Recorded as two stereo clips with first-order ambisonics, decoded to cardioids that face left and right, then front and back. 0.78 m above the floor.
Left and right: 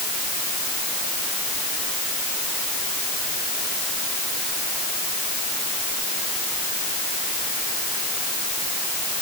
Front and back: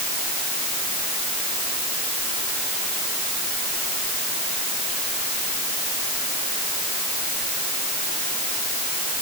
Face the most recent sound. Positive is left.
No sound to turn to.